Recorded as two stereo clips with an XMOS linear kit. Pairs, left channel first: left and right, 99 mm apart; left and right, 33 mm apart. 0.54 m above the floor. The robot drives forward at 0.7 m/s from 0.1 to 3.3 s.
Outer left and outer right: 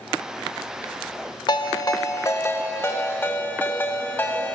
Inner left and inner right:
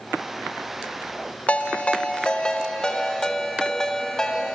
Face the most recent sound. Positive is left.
turn(degrees=20)  # may be behind; listen again after turning